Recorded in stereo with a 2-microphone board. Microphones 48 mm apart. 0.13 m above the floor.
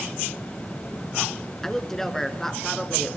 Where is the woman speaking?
10° left (ahead or behind), 1.8 m.